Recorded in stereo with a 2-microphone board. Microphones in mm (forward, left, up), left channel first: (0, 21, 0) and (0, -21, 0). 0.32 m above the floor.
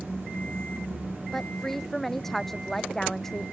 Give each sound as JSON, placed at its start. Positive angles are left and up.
{"t": 1.3, "sound": "a woman speaking", "side_deg": 5}